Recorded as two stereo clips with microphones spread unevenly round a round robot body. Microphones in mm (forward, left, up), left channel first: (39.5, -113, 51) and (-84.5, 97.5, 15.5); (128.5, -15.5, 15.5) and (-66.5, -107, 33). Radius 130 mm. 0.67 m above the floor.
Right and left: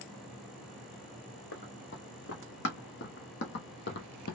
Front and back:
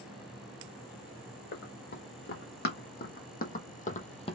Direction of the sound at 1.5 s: 15° right.